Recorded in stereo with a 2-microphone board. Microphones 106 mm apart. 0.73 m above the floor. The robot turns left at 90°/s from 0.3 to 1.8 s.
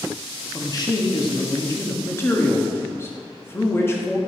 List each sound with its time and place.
0.5 s a man speaking: 145° left, 1.0 m; by 4.2 s 35° left, 1.0 m